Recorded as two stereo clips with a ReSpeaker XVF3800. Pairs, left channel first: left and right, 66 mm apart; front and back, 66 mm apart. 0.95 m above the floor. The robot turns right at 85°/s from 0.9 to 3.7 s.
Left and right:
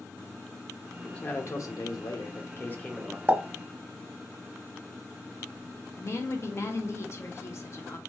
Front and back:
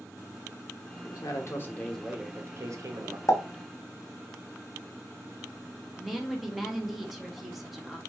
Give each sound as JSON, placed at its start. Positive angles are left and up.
{"t": 1.0, "sound": "a man speaking", "azimuth_deg": 5, "distance_m": 0.9}
{"t": 3.3, "sound": "a pop", "azimuth_deg": -30, "distance_m": 0.9}
{"t": 6.0, "sound": "a woman speaking", "azimuth_deg": 90, "distance_m": 0.8}